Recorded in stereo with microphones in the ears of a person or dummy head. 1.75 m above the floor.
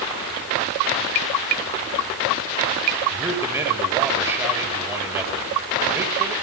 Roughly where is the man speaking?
Centre.